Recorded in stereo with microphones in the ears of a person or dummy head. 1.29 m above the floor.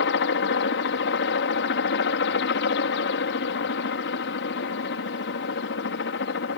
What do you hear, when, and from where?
0.0 s a helicopter: 55° left (ahead or behind)